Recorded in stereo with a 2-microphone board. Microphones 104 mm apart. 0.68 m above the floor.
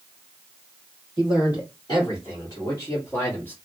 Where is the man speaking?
45° left (ahead or behind), 2.5 m; by 3.5 s 20° left (ahead or behind), 1.1 m.